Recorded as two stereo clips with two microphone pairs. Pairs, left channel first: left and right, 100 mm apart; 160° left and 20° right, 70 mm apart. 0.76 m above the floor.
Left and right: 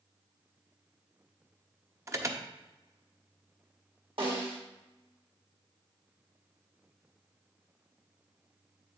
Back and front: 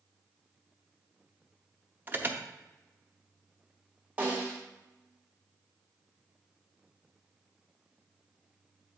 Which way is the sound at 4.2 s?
85° right.